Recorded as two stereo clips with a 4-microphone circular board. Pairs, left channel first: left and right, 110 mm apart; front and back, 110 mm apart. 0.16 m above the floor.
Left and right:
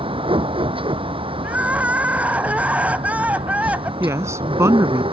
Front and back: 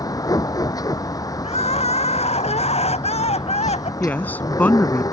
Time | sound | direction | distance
0.0 | a vehicle | 55° right | ?
1.4 | crying | 10° right | ?
4.0 | a woman speaking | 60° right | ?